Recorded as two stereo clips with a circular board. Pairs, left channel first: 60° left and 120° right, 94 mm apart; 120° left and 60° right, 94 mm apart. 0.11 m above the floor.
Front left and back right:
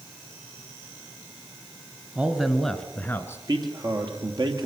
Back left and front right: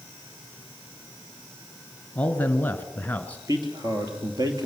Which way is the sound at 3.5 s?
90° right.